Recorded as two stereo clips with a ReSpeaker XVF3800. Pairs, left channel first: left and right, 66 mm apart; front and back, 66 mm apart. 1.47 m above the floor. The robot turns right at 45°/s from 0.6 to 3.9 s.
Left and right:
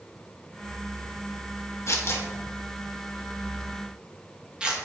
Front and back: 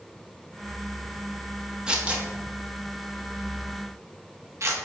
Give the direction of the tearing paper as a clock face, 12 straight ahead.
8 o'clock.